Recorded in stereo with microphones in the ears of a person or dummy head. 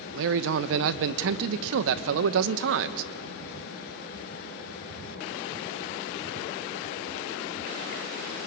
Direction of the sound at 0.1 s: 70° right (ahead or behind).